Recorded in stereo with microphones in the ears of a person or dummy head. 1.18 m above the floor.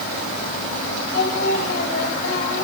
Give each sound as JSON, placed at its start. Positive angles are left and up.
{"t": 1.1, "sound": "singing", "side_deg": 60, "distance_m": 5.5}